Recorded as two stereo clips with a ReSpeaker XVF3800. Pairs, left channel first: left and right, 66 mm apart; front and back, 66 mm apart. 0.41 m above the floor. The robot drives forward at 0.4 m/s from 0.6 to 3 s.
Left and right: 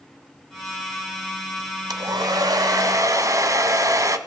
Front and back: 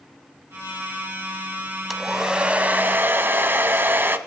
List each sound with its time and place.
1.9 s a hair dryer: 90° right, 0.7 m; by 4.2 s 120° right, 0.8 m